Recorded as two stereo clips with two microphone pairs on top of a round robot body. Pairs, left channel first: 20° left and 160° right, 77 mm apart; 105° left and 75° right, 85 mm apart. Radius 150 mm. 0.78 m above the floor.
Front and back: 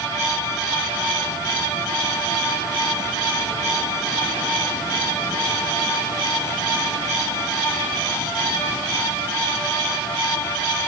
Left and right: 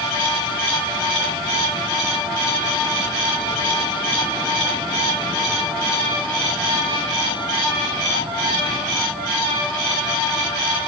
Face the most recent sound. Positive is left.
No sound to turn to.